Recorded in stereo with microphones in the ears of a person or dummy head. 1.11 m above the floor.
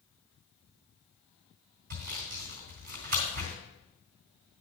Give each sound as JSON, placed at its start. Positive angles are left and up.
{"t": 1.9, "sound": "sawing", "side_deg": -50, "distance_m": 3.0}